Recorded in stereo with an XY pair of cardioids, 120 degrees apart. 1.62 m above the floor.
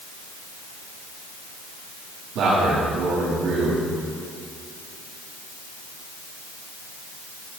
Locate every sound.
2.4 s a man speaking: 70° right, 3 m